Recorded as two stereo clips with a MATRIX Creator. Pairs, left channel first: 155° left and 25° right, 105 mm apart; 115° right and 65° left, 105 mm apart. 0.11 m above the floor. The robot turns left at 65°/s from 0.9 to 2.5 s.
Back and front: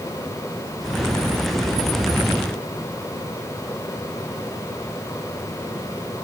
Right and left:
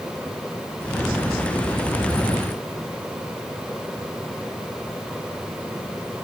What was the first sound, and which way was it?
Only background noise.